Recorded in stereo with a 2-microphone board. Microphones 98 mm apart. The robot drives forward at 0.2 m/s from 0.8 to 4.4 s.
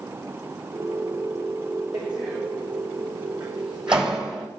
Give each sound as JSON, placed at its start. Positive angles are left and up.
{"t": 1.9, "sound": "a door slam", "side_deg": -5, "distance_m": 7.5}